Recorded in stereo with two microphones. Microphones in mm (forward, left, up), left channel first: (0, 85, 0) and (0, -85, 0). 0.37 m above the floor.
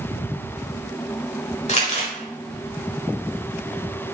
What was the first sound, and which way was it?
Crumpling, 45° left (ahead or behind).